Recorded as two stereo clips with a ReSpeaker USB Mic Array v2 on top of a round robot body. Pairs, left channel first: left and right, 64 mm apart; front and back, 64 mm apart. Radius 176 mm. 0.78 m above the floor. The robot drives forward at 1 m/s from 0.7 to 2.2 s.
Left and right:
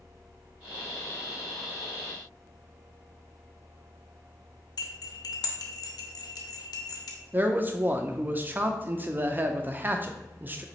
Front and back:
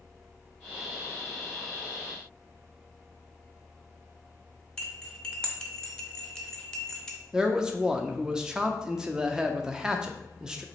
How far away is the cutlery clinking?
About 0.5 m.